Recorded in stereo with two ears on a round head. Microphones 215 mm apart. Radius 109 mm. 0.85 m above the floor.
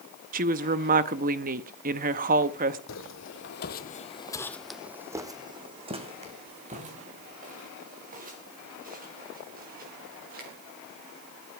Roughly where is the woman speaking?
Right.